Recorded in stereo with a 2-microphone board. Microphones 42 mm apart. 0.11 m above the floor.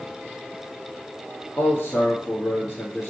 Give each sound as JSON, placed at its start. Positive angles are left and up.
{"t": 1.6, "sound": "a man speaking", "side_deg": 45, "distance_m": 1.7}